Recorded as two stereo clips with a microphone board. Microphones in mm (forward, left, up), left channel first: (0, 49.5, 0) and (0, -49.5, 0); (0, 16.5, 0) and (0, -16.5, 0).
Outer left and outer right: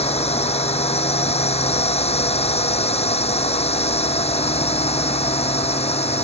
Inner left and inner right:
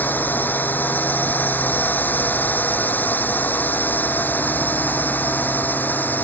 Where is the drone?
85° left.